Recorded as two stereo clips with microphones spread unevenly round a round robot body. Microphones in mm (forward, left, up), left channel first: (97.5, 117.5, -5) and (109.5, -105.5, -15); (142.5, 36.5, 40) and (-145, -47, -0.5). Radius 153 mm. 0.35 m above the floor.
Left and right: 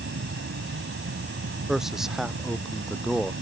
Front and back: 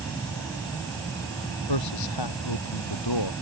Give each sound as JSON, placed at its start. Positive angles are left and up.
{"t": 0.0, "sound": "an insect", "azimuth_deg": -65}
{"t": 1.7, "sound": "a man speaking", "azimuth_deg": 0}